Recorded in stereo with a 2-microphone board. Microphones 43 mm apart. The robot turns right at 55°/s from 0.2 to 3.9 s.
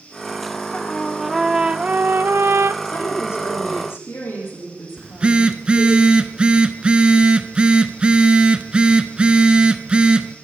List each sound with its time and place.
0.7 s a trumpet: 155° left, 0.5 m; by 2.7 s 95° right, 0.5 m
2.8 s a woman speaking: 45° left, 6 m; by 6.0 s 105° left, 6 m
5.0 s a phone buzzing: 20° right (ahead or behind), 0.8 m